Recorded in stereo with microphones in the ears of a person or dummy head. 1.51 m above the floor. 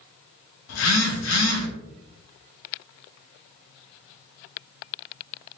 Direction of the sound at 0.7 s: 75° left (ahead or behind).